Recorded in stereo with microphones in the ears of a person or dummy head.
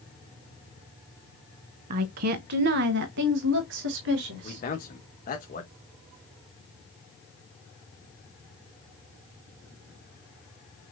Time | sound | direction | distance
1.9 | a woman speaking | 40° right (ahead or behind) | 0.5 m
4.4 | a man speaking | 40° left (ahead or behind) | 1.9 m